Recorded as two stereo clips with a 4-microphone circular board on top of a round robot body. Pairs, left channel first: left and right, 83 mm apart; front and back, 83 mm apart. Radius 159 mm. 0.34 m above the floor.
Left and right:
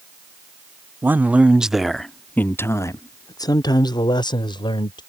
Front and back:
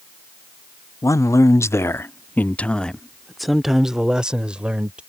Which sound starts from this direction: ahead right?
A man speaking, at 1.0 s.